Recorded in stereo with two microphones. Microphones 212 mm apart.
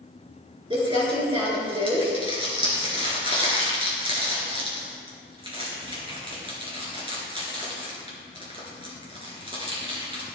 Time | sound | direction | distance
0.7 | crumpling | 25° right (ahead or behind) | 3 m